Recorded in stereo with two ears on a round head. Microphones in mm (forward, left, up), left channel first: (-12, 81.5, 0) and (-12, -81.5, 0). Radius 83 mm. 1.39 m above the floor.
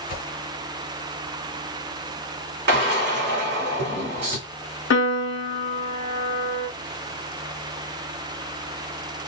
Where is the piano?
75° left (ahead or behind), 0.9 m.